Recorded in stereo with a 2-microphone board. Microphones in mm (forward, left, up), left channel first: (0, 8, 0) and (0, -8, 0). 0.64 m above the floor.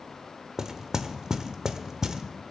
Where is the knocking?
45° right (ahead or behind), 1.1 m.